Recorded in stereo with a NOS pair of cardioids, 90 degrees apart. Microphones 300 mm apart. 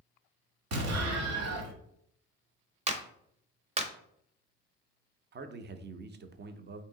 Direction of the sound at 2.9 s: 20° right.